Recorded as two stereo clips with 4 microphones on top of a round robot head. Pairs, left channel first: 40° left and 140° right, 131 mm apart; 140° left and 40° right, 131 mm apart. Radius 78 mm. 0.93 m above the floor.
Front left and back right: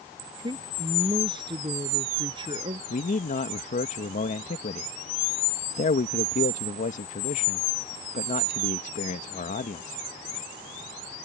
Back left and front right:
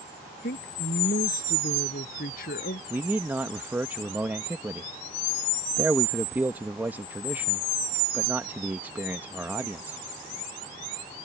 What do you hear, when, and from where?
0.4 s a woman speaking: 160° left
2.9 s a man speaking: 35° left